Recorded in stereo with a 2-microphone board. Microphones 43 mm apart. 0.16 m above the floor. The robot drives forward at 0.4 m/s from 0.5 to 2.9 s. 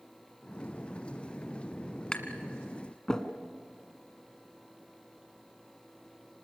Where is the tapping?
15° left (ahead or behind), 1.5 m.